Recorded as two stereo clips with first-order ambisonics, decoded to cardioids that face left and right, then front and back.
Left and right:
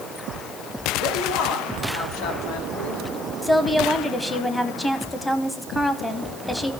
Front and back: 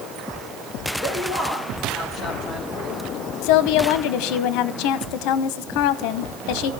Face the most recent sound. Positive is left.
turn(degrees=5)